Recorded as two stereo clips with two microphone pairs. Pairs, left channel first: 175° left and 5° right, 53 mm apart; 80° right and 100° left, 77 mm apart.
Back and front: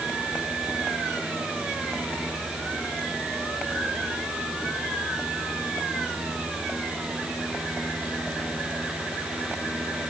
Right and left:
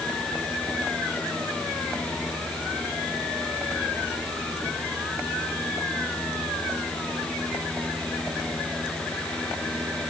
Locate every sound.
Only background noise.